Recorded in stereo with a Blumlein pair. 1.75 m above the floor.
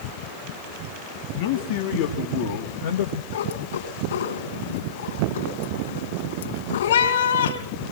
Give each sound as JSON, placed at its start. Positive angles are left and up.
{"t": 1.4, "sound": "a man speaking", "azimuth_deg": 50, "distance_m": 2.5}
{"t": 3.3, "sound": "a cat meowing", "azimuth_deg": 60, "distance_m": 4.5}